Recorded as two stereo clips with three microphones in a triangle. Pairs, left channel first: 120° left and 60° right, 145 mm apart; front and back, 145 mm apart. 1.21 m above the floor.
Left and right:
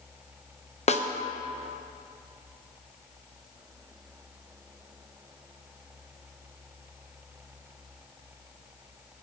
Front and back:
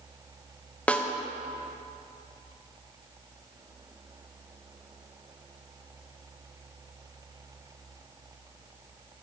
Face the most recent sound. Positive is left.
turn(degrees=80)